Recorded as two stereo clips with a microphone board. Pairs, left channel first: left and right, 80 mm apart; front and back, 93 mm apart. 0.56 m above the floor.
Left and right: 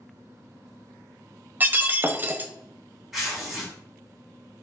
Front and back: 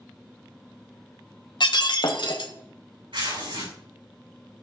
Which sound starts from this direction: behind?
Tearing paper, at 3.1 s.